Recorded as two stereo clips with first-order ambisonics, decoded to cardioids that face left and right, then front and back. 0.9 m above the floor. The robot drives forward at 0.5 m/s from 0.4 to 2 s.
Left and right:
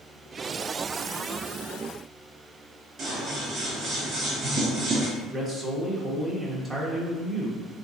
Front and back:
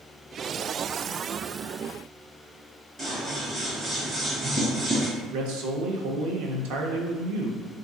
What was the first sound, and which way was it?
Scissors, 130° right.